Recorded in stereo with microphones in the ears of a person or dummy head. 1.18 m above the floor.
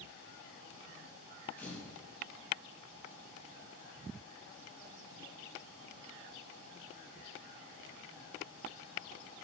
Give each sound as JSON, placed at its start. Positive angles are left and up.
{"t": 1.6, "sound": "a camera shutter", "side_deg": 5, "distance_m": 6.5}